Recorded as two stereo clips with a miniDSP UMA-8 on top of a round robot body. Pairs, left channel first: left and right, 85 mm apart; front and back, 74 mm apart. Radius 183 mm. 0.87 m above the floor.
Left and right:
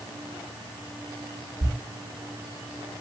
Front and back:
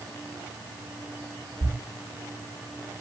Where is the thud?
130° right, 3 m.